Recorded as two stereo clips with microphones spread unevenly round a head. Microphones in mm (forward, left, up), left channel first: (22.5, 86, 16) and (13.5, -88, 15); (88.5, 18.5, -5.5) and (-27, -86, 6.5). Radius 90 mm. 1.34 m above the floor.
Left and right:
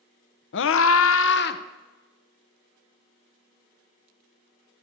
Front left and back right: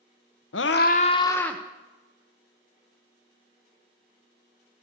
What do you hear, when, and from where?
0.5 s a scream: 65° left, 0.8 m; by 1.6 s 130° left, 1.0 m